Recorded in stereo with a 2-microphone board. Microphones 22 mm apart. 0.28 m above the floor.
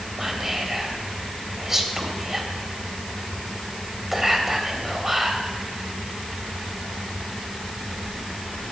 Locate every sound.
0.2 s whispering: 20° right (ahead or behind), 1.0 m